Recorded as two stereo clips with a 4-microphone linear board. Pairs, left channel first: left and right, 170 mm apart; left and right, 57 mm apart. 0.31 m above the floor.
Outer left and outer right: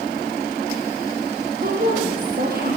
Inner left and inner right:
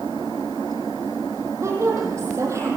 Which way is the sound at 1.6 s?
60° right (ahead or behind).